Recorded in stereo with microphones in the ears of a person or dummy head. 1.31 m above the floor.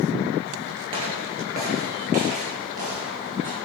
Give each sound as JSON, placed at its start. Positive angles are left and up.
{"t": 0.9, "sound": "footsteps", "side_deg": -25, "distance_m": 1.5}